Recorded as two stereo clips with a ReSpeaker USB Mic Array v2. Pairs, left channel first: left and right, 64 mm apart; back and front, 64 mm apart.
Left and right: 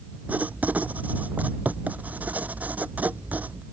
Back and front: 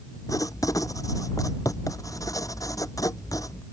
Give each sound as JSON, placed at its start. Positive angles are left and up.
{"t": 0.3, "sound": "writing", "azimuth_deg": -155}